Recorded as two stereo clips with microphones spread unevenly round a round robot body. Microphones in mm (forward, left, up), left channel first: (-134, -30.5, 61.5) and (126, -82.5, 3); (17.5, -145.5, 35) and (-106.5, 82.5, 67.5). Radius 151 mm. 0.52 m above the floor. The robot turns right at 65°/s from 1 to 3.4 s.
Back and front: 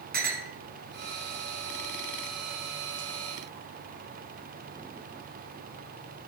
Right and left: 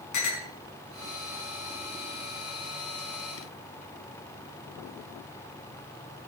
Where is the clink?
65° right, 4 m.